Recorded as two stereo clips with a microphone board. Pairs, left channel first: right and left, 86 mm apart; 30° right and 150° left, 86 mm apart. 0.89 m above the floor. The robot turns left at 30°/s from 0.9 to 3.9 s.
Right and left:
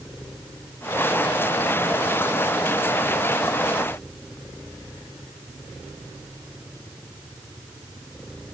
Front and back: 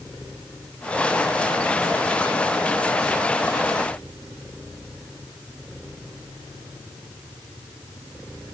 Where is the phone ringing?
I don't hear a phone ringing.